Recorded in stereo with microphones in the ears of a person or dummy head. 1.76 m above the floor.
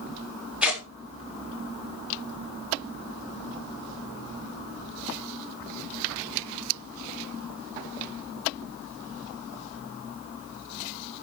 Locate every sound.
0.6 s tearing paper: 5° right (ahead or behind), 3.5 m